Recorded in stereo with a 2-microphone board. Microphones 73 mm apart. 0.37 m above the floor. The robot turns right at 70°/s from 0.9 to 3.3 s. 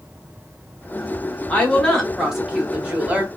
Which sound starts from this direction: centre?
A woman speaking, at 1.5 s.